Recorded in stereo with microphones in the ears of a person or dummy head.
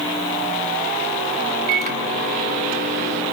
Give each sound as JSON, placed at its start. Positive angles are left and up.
{"t": 1.7, "sound": "a microwave", "side_deg": -40, "distance_m": 2.5}